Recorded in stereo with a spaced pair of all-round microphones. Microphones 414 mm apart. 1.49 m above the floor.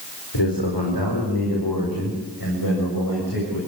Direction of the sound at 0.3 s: 75° left (ahead or behind).